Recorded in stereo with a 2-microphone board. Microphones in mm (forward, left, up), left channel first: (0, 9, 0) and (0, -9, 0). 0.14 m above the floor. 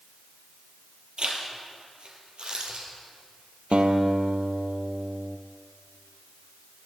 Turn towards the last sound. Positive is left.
turn(degrees=-75)  # may be behind; listen again after turning